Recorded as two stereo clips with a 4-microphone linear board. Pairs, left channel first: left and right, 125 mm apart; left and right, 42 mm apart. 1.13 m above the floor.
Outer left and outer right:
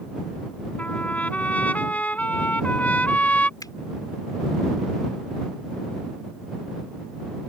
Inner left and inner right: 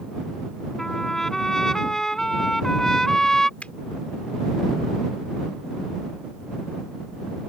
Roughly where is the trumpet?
Centre.